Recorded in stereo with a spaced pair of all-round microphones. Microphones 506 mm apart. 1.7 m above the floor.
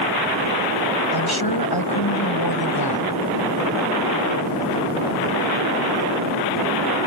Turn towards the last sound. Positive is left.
turn(degrees=45)  # may be behind; listen again after turning